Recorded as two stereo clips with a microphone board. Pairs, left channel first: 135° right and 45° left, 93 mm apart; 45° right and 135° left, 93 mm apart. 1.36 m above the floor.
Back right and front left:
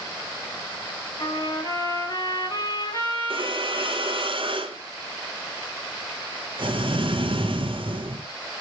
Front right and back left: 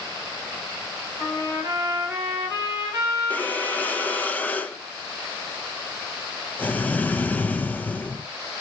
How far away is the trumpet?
About 5 m.